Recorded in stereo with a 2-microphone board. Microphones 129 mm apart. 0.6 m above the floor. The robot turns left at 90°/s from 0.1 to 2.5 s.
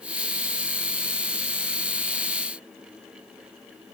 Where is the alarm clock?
No alarm clock in this recording.